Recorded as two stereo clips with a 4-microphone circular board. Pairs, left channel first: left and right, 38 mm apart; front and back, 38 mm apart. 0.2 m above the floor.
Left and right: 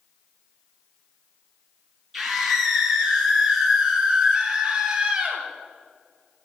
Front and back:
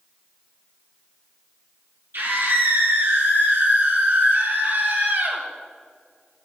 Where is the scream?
Straight behind, 5.5 m; by 5.4 s 160° right, 5 m.